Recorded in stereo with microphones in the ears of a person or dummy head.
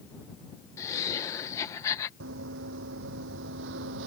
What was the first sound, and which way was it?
Laughter, 20° left (ahead or behind).